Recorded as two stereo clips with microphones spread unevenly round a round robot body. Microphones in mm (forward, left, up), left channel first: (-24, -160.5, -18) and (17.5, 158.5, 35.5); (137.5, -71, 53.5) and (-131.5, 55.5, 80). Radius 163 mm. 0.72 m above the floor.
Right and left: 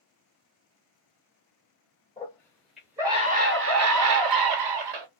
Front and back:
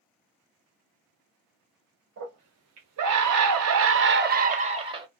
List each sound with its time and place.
2.2 s a scream: 165° right, 1.5 m; by 5.1 s 80° left, 1.6 m